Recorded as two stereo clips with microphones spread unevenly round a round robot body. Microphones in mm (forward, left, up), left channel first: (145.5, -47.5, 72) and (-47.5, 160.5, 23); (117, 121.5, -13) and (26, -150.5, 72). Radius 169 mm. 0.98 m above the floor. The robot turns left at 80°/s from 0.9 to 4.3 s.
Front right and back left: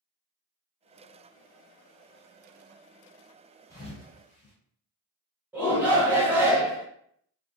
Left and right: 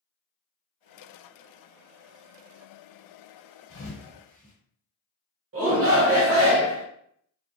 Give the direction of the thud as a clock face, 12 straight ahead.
11 o'clock.